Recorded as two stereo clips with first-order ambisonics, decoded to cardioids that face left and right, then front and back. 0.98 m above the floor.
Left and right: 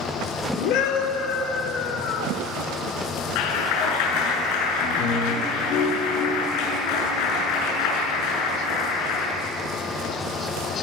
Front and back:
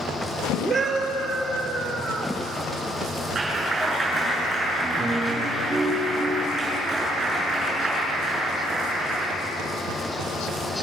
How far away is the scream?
About 2.5 m.